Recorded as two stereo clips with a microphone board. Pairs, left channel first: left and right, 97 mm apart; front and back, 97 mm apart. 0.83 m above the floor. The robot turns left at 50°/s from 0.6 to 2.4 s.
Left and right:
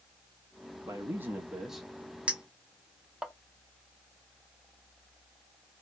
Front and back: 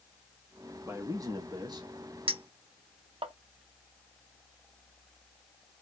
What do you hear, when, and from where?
0.8 s a man speaking: 130° right, 1.0 m; by 1.9 s 175° left, 1.0 m
2.3 s a clink: 170° right, 0.7 m; by 3.3 s 175° right, 0.7 m